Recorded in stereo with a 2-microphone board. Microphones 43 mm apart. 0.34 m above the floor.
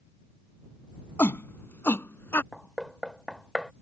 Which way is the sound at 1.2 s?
60° left (ahead or behind).